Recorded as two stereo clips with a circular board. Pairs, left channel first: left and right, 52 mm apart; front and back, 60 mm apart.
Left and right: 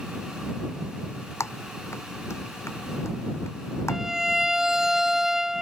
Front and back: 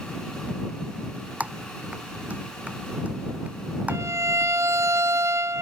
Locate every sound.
1.4 s typing on a keyboard: 115° left
3.9 s a violin: 170° right